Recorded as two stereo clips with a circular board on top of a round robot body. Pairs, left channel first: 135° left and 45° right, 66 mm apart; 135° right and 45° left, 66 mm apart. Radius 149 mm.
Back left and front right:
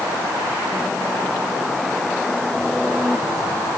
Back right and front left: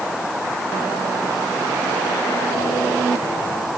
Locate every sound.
Only background noise.